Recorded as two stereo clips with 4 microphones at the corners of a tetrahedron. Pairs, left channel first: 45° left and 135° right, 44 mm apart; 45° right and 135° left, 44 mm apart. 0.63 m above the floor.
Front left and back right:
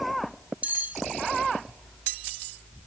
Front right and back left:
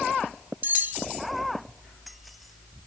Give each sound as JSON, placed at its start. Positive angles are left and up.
{"t": 0.6, "sound": "cutlery clinking", "azimuth_deg": 175, "distance_m": 1.1}